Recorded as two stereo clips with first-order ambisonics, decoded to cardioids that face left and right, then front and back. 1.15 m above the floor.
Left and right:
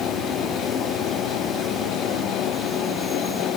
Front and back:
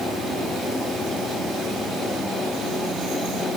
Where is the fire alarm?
No fire alarm in this recording.